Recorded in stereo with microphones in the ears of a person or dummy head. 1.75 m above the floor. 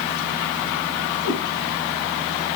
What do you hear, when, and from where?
1.2 s a cat meowing: 50° left (ahead or behind), 5.5 m